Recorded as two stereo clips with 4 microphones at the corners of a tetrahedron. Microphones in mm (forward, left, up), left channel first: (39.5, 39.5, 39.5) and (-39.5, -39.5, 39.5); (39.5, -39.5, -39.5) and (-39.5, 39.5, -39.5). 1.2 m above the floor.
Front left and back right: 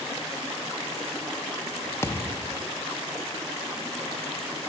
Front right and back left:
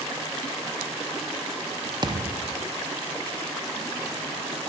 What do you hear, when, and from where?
2.0 s a thud: 105° left, 0.7 m